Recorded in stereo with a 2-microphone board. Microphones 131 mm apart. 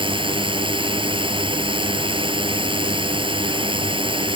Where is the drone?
35° right (ahead or behind).